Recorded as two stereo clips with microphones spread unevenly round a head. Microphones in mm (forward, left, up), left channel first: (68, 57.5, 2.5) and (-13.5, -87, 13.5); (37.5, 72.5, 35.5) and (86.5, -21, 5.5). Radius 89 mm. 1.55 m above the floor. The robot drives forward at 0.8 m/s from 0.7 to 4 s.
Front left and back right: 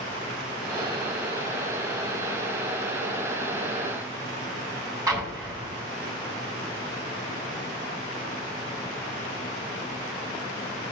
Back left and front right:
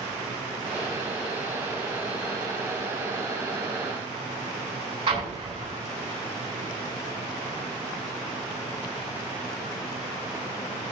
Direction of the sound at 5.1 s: 50° right.